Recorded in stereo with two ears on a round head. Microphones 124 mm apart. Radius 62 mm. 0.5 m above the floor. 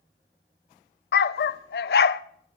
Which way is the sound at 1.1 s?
80° left.